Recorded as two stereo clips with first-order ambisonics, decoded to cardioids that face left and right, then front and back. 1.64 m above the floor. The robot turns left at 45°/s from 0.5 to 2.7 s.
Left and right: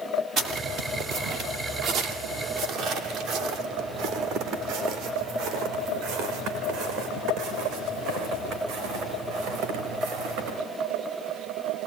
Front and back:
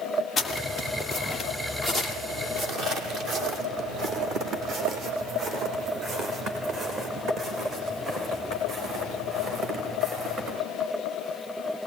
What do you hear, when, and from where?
0.4 s footsteps: 60° right, 2 m; by 10.6 s 125° right, 6.5 m